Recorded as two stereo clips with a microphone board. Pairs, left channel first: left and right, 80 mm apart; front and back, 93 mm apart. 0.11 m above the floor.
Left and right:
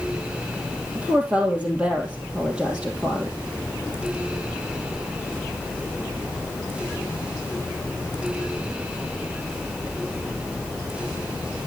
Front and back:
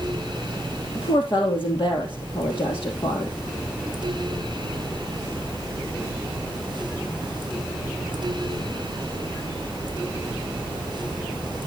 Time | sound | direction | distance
0.9 | a woman speaking | 15° right | 3 m